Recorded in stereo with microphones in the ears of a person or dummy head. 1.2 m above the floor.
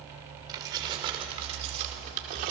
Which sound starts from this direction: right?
Keys jangling, at 0.5 s.